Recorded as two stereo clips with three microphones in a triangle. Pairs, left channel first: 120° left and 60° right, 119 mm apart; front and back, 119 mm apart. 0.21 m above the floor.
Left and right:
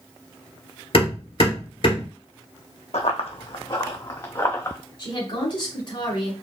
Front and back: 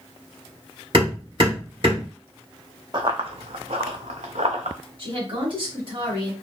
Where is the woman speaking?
155° left, 2.0 m.